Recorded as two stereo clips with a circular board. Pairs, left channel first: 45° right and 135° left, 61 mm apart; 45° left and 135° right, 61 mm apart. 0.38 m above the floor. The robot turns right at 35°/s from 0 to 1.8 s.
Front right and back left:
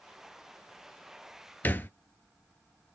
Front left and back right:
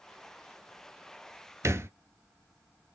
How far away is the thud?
About 0.5 m.